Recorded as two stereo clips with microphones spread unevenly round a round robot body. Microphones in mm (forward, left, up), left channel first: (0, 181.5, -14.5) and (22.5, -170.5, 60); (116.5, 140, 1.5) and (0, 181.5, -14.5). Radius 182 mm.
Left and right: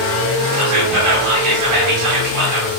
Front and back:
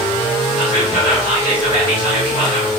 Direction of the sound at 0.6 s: 65° right.